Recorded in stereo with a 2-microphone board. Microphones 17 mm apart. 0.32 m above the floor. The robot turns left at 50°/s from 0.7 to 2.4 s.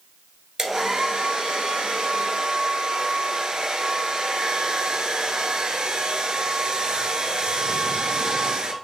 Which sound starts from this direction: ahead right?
A hair dryer, at 0.6 s.